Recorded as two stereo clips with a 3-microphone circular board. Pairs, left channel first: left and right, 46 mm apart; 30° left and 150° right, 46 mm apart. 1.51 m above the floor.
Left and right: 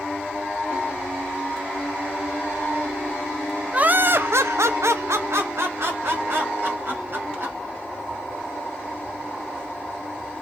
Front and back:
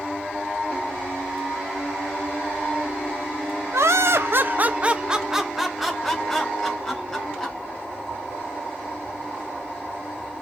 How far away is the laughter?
About 0.6 m.